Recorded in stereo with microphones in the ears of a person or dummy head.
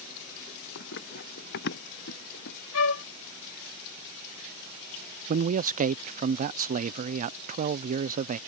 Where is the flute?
85° left.